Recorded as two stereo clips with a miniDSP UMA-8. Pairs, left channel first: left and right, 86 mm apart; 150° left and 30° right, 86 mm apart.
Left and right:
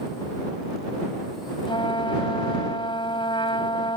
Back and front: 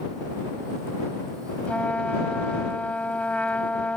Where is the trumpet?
75° left.